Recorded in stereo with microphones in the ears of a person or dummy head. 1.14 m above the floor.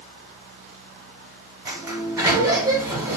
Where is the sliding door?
10° right (ahead or behind), 0.6 m.